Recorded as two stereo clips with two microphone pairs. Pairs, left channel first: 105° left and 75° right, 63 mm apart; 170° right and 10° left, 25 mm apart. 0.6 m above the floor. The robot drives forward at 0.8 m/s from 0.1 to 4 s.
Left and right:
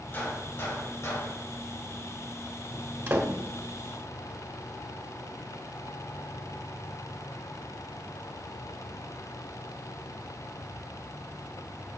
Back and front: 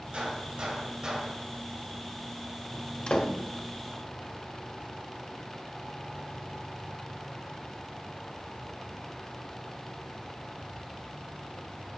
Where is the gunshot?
50° left, 2 m; by 1.4 s 75° left, 1.7 m.